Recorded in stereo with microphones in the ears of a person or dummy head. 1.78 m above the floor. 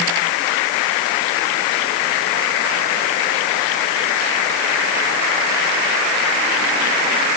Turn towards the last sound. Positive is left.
No sound to turn to.